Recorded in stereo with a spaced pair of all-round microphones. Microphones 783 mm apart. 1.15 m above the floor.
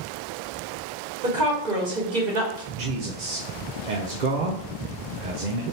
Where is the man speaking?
65° right (ahead or behind), 0.7 m.